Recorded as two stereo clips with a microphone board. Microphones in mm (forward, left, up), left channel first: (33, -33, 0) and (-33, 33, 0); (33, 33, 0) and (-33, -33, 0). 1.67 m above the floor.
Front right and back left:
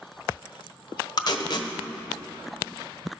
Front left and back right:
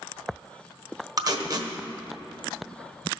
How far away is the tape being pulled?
About 1.1 m.